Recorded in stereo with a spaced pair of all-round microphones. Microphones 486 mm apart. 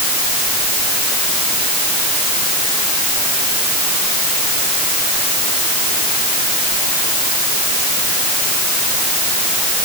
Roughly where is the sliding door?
No sliding door in this recording.